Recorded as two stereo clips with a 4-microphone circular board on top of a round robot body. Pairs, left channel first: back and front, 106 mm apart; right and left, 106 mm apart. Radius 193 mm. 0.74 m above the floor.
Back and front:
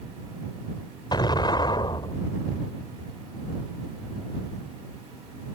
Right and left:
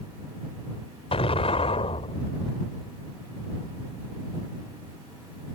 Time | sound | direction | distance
1.1 | an explosion | 130° right | ?